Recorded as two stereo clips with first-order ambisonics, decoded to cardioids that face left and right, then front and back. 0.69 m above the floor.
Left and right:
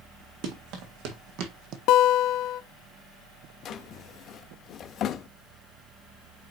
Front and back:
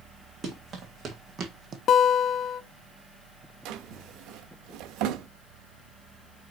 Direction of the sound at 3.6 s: 145° left.